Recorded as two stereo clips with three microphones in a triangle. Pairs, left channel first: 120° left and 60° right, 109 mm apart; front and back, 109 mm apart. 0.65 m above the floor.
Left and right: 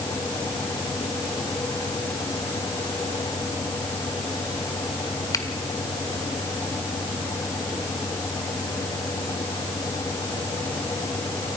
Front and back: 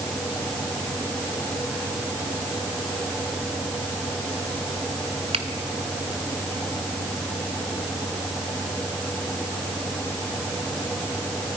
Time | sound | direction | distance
5.3 | a finger snap | 175° left | 1.6 m